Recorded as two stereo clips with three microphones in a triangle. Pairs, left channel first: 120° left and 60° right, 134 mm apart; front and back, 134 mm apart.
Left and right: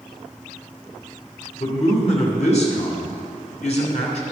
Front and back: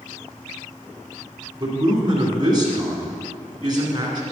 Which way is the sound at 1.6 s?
130° left.